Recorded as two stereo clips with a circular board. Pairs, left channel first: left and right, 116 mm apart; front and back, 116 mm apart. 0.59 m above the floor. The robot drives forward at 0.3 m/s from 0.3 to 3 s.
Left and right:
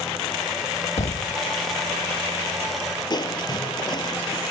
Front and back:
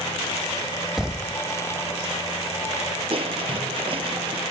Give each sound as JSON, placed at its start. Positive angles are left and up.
{"t": 1.0, "sound": "a thud", "azimuth_deg": 95}
{"t": 3.1, "sound": "crushing", "azimuth_deg": 140}